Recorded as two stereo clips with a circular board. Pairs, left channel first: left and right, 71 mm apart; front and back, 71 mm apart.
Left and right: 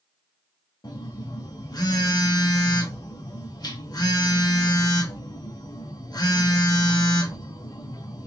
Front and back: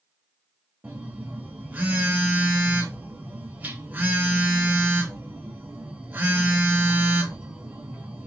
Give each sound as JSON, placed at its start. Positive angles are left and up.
{"t": 0.8, "sound": "a phone buzzing", "azimuth_deg": 115, "distance_m": 0.7}